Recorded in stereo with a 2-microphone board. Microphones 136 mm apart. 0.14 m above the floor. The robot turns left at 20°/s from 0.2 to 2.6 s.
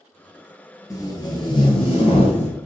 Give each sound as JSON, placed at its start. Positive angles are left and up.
{"t": 0.9, "sound": "tape being pulled", "azimuth_deg": 150, "distance_m": 0.8}